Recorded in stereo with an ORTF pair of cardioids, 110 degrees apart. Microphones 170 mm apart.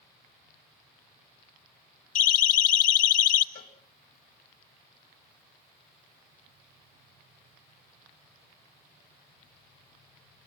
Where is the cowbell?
60° left, 4 m.